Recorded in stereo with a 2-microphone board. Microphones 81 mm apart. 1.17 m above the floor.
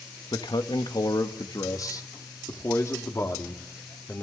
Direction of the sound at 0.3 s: 70° left (ahead or behind).